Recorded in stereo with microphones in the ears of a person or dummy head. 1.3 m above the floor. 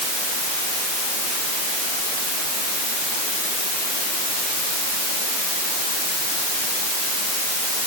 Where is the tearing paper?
No tearing paper in this recording.